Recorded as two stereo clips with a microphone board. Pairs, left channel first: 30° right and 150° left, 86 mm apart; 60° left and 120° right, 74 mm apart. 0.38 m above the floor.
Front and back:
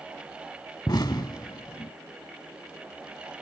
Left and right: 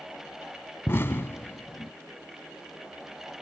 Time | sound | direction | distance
0.9 | an explosion | 5° left | ?